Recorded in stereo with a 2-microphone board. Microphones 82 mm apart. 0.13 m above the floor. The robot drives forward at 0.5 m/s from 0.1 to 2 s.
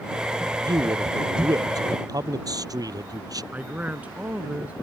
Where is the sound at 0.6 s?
55° right (ahead or behind); by 3.4 s 50° right (ahead or behind).